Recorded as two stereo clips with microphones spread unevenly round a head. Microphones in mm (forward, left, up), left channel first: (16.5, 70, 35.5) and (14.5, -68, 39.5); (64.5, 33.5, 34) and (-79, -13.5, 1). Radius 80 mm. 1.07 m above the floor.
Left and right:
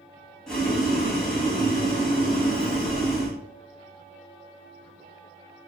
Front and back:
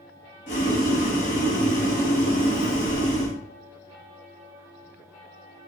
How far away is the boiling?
About 1.4 m.